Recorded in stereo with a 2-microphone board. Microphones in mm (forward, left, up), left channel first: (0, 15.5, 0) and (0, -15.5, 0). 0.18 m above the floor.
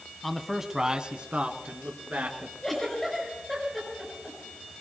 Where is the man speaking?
10° left (ahead or behind), 1.1 m; by 2.5 s 60° right (ahead or behind), 2.5 m.